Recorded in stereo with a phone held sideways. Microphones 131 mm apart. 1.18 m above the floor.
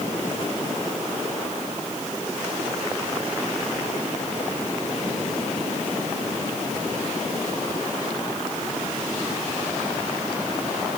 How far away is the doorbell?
I don't hear a doorbell.